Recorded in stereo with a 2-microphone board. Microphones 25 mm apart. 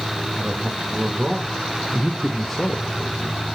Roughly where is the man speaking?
Right.